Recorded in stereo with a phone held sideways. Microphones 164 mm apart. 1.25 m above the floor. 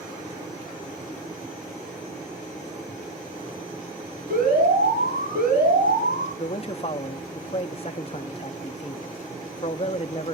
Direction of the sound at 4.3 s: 85° right.